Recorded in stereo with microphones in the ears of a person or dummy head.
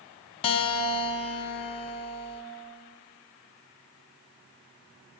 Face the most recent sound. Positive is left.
turn(degrees=30)  # may be behind; listen again after turning